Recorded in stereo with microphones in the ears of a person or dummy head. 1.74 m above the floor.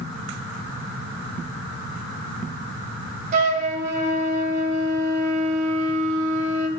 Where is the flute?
50° right (ahead or behind), 3 m.